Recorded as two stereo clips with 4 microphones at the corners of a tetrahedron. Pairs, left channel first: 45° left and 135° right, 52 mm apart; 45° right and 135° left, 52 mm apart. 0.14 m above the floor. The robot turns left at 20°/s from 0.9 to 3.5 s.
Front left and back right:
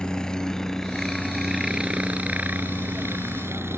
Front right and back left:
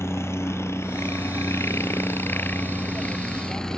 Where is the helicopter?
30° right; by 3.8 s 125° right.